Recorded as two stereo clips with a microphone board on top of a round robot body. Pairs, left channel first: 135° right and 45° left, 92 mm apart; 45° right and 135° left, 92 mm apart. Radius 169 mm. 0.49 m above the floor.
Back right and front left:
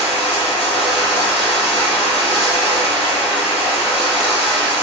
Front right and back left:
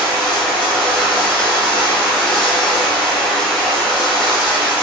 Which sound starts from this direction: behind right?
Running water, at 0.0 s.